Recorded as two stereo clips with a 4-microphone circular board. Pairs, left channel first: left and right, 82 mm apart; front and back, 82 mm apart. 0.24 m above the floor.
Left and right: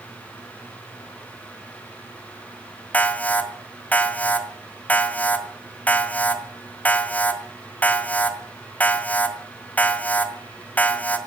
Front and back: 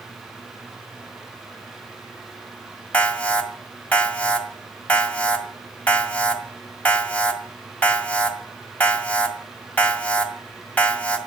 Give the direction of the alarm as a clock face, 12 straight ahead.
10 o'clock.